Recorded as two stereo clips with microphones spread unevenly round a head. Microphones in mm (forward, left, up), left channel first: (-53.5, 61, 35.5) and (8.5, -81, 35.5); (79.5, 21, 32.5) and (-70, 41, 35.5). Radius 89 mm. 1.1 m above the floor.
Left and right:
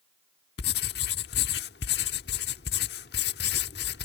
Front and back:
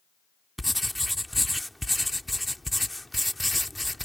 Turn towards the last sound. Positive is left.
turn(degrees=85)